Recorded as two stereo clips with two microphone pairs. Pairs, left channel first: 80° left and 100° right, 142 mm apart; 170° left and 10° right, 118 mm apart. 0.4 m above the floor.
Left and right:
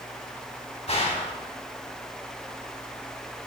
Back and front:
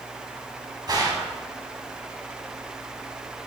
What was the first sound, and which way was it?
A gunshot, 40° left.